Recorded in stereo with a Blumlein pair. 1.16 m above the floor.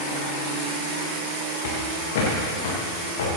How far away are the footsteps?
About 4.5 m.